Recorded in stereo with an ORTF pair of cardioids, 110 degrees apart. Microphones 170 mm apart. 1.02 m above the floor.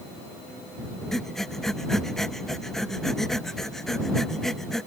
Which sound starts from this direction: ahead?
Breathing, at 1.1 s.